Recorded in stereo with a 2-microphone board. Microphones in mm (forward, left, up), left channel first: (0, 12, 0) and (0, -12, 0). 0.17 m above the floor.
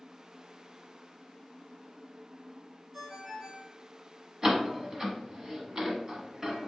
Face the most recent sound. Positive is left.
turn(degrees=-25)  # may be behind; listen again after turning